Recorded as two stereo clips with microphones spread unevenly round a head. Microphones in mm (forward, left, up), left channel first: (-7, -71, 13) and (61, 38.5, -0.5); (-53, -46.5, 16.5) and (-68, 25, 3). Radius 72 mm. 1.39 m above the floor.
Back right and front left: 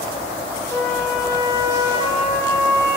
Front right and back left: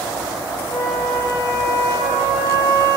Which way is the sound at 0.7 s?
55° right.